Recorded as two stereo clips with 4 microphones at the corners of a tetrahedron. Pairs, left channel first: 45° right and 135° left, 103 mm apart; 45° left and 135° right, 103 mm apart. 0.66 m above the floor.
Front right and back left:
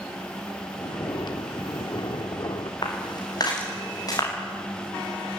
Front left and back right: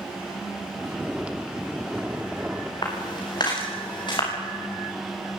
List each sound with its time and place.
0.7 s snoring: 60° right, 1.6 m
2.8 s footsteps: straight ahead, 9 m; by 4.3 s 5° left, 10.5 m